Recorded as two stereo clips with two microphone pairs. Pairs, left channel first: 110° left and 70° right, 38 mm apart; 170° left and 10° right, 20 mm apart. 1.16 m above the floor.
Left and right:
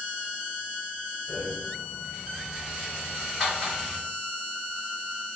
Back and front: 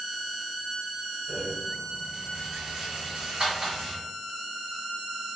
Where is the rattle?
15° left, 1.5 m.